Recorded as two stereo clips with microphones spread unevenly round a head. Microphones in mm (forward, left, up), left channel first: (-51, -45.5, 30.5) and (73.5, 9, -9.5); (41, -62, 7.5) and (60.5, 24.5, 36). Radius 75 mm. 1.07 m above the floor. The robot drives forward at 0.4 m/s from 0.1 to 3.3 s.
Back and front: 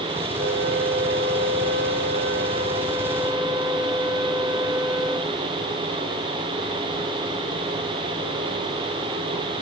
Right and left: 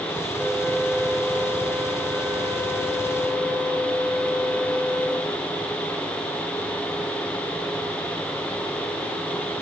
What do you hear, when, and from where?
0.4 s a flute: 15° left, 1.2 m; by 5.4 s 120° left, 0.7 m